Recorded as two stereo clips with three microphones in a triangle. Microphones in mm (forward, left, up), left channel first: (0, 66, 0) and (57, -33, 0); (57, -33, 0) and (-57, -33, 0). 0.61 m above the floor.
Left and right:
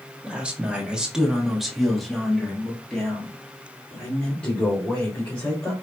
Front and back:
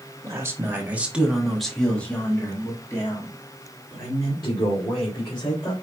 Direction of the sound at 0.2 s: 135° right.